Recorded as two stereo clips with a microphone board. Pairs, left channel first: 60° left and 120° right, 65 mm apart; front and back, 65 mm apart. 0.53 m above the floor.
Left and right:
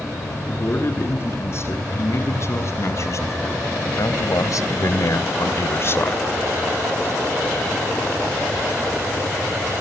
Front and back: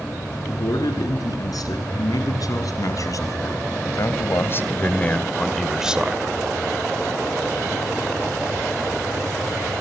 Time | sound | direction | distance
0.5 | a man speaking | 10° left | 6.5 m